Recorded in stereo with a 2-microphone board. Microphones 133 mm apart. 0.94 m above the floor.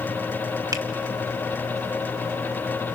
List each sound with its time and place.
0.7 s a finger snap: 25° right (ahead or behind), 1.6 m